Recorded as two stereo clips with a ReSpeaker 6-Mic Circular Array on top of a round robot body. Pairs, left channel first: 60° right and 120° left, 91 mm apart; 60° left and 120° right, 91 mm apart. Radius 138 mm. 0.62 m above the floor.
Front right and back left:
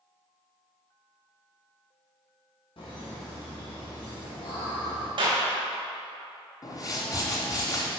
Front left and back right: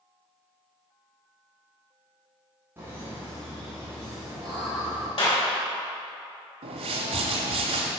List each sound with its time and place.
2.8 s laughter: 55° right, 2.5 m; by 5.1 s 40° right, 4 m
5.2 s a clap: 85° left, 3 m
6.6 s a whoosh: 115° right, 0.9 m